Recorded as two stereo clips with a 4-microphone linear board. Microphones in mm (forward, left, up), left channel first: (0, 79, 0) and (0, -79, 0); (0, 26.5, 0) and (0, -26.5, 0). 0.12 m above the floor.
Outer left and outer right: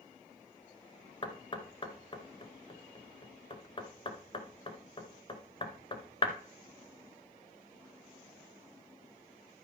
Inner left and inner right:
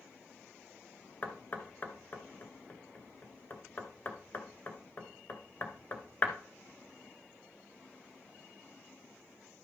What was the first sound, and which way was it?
Knocking, 35° left (ahead or behind).